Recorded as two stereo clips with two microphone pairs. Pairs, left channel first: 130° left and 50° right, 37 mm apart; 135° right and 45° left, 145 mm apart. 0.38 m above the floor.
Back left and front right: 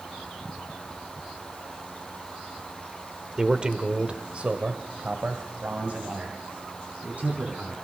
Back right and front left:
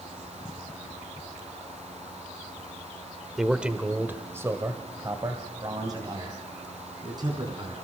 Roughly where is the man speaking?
Ahead right.